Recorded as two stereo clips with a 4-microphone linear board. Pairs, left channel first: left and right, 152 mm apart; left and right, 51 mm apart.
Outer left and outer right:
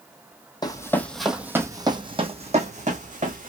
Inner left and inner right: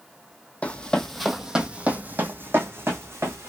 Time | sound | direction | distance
0.6 | running footsteps | 25° left (ahead or behind) | 0.7 m